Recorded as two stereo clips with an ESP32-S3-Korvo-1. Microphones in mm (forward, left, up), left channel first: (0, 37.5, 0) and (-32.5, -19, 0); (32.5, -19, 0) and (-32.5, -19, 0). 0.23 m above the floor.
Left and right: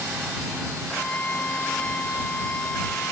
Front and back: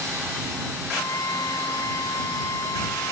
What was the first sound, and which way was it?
A flute, 5° right.